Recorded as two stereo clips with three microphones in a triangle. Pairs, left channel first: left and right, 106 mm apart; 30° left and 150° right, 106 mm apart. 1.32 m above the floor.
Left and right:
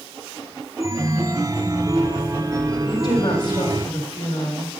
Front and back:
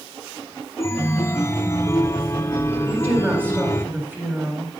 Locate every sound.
0.8 s a chime: 35° right, 0.5 m
2.9 s a woman speaking: 140° left, 2 m